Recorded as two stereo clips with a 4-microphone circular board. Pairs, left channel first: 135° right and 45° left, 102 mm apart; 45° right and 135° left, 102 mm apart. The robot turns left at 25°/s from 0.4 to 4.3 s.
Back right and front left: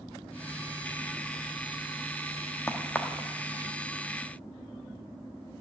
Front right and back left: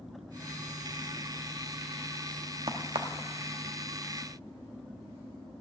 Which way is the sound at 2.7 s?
160° left.